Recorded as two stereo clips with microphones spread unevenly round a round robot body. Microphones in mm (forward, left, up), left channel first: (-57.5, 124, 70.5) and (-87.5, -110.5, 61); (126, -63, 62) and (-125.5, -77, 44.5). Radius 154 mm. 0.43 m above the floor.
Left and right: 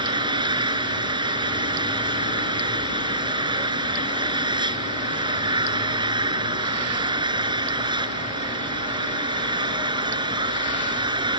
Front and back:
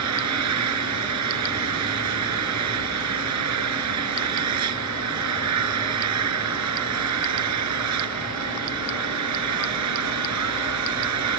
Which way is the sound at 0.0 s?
170° right.